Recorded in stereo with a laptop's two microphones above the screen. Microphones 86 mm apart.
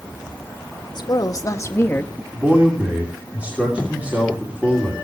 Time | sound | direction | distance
0.9 | a woman speaking | 55° left (ahead or behind) | 1.4 m
2.3 | a man speaking | 15° right (ahead or behind) | 3 m